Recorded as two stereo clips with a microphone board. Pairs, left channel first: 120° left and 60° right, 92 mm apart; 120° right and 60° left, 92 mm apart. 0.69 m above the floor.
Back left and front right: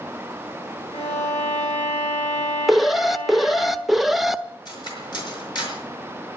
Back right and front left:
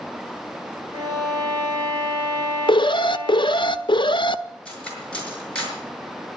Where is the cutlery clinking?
160° left, 5.5 m.